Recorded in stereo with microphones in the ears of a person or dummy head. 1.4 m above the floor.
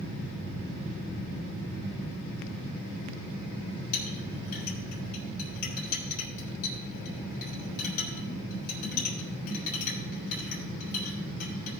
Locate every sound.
3.9 s a clink: 55° left (ahead or behind), 4 m